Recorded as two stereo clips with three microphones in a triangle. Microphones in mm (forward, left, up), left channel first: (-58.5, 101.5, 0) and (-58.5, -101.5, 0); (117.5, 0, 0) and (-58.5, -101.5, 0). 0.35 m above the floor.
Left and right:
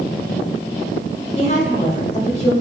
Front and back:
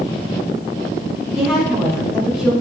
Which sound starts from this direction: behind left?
A woman speaking, at 1.4 s.